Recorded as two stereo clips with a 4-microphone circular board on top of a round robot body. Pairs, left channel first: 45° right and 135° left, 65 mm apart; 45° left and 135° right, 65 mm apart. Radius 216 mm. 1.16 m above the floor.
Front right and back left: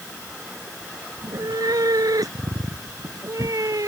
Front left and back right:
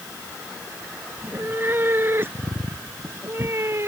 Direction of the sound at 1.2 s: 165° left.